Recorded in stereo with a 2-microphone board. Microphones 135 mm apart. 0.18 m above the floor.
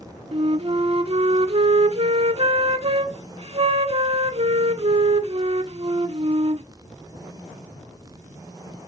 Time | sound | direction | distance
0.3 | a flute | 45° right (ahead or behind) | 0.6 m